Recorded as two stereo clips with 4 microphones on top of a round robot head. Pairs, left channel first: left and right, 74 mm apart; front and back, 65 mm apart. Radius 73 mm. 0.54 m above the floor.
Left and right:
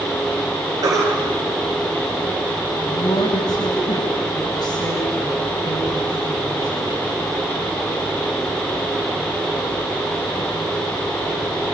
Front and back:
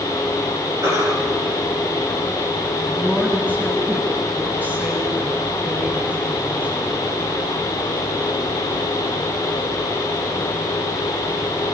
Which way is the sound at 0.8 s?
130° right.